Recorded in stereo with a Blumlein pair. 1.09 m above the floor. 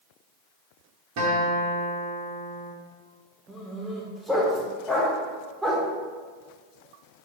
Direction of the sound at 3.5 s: 5° right.